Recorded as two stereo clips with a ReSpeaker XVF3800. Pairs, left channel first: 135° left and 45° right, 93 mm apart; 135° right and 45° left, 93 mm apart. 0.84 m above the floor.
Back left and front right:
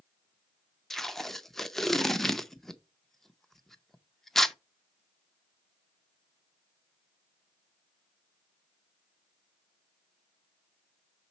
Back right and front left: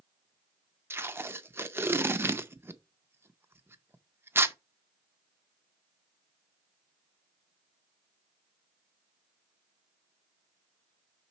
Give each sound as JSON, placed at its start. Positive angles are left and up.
{"t": 0.9, "sound": "tape being pulled", "azimuth_deg": 55, "distance_m": 0.5}